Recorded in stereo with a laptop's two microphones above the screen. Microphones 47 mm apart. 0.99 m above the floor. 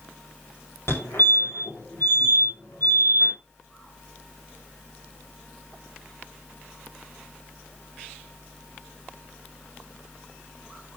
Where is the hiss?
No hiss in this recording.